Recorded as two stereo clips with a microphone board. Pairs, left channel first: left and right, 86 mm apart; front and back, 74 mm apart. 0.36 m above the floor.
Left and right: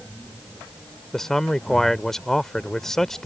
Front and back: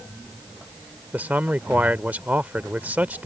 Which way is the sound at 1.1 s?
165° left.